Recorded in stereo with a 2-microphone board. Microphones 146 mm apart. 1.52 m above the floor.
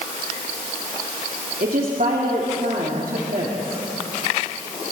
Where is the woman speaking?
75° right (ahead or behind), 3 m.